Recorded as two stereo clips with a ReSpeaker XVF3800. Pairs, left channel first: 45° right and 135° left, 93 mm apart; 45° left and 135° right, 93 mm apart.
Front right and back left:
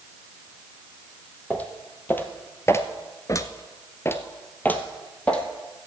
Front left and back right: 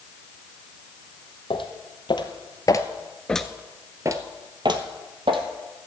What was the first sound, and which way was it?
Footsteps, 25° left.